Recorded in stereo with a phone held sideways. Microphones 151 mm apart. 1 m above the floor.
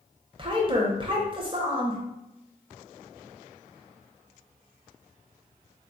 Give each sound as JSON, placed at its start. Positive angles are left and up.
{"t": 0.4, "sound": "a woman speaking", "side_deg": -35, "distance_m": 0.7}